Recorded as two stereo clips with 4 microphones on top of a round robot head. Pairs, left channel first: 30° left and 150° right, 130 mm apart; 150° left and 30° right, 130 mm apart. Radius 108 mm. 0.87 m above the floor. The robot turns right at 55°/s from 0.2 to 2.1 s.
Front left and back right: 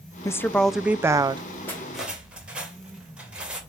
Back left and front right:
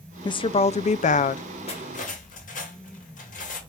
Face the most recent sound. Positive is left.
turn(degrees=130)